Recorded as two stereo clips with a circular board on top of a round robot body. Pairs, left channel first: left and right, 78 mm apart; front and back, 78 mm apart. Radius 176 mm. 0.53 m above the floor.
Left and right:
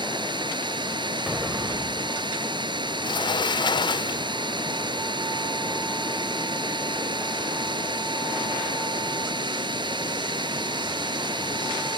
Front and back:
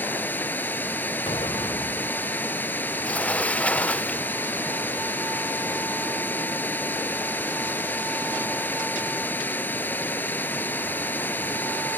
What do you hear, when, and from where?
0.0 s running water: 65° right
1.3 s an explosion: 15° right
3.0 s a sliding door: 75° left